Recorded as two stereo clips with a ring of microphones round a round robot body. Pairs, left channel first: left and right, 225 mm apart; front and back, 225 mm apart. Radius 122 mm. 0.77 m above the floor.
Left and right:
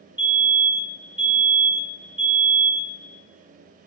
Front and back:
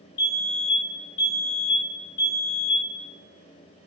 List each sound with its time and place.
0.2 s a fire alarm: 10° right, 2.5 m